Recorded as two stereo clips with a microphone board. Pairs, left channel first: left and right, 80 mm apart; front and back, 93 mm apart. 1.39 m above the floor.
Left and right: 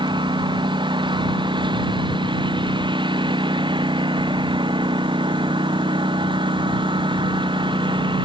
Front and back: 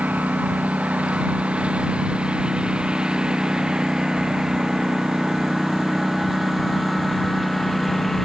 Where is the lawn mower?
105° right; by 8.3 s 90° right.